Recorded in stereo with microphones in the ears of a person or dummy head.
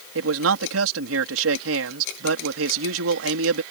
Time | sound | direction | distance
0.1 | a man speaking | 80° right | ?